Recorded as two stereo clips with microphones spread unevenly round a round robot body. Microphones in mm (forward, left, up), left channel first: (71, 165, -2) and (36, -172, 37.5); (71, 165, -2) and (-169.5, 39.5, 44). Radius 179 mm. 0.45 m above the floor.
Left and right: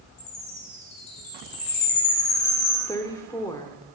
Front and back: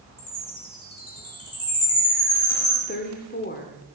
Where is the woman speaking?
15° left, 1.1 m.